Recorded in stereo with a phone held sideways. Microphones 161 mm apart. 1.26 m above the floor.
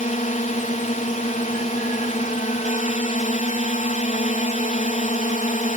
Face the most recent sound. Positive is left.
turn(degrees=50)  # may be behind; listen again after turning